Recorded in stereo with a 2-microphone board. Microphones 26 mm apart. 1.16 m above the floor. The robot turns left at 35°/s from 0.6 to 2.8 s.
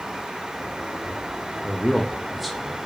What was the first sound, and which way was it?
A man speaking, 30° left.